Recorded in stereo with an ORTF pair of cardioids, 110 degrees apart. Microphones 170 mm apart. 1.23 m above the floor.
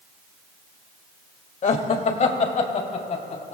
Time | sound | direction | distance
1.6 | laughter | 45° left | 2 m